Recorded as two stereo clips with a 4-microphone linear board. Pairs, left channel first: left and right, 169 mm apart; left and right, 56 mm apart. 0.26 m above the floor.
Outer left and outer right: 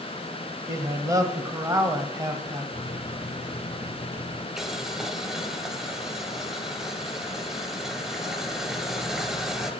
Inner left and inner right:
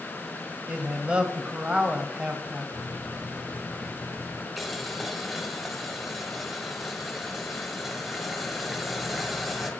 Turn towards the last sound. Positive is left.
turn(degrees=0)  # may be behind; listen again after turning